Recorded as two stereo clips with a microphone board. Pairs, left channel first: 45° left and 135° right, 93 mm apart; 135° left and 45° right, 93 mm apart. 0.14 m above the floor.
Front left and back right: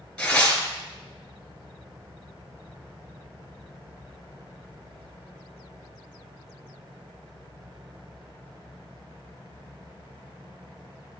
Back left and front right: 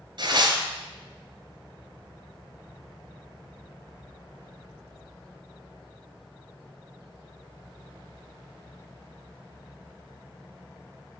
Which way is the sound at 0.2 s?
35° right.